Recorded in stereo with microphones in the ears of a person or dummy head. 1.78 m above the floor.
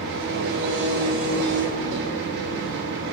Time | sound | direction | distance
0.0 | an engine running | 65° right (ahead or behind) | 2.5 m